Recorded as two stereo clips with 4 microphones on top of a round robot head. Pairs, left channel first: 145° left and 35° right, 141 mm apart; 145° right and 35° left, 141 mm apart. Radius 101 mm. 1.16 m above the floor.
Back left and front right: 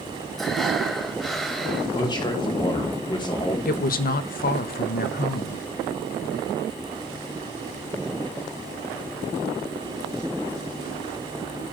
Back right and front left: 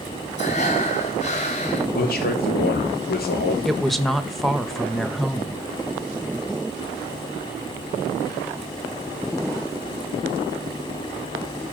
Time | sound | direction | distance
0.4 | breathing | 125° right | 1.0 m
1.9 | a man speaking | 155° right | 3 m
3.6 | a woman speaking | 125° left | 1.0 m